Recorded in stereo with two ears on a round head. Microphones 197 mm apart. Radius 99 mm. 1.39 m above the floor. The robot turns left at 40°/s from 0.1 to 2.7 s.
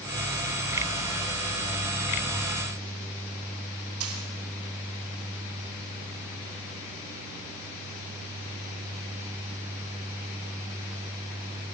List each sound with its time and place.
4.0 s a dropped coin: 75° right (ahead or behind), 5.5 m